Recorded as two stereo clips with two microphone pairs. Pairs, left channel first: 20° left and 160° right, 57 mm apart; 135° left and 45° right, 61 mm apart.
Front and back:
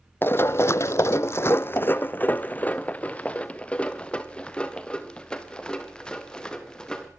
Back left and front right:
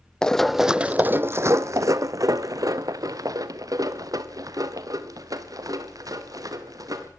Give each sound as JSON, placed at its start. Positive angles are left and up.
{"t": 0.2, "sound": "running footsteps", "azimuth_deg": 60, "distance_m": 0.6}